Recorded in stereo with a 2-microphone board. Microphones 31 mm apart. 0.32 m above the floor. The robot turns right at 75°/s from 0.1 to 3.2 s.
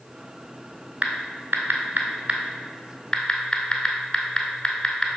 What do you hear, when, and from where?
1.0 s typing on a keyboard: 40° right (ahead or behind), 1.1 m; by 5.1 s 20° left (ahead or behind), 1.1 m